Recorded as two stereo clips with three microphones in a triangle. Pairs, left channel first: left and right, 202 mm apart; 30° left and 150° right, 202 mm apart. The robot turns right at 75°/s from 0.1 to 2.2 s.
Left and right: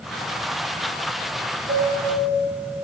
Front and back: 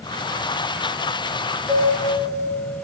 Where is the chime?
85° right, 3.5 m; by 2.5 s 45° right, 3.5 m.